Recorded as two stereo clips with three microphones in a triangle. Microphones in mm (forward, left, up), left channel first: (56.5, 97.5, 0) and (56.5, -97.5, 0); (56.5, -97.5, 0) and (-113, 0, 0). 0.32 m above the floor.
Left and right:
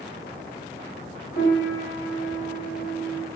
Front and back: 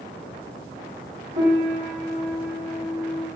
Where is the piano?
110° left, 1.0 m.